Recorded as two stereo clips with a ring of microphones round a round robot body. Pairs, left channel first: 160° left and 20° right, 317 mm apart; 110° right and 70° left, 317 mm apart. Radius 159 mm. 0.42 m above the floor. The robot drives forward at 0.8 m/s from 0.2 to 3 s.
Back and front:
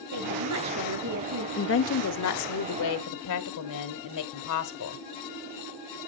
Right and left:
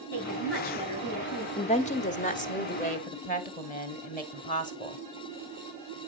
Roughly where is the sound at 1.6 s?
Behind.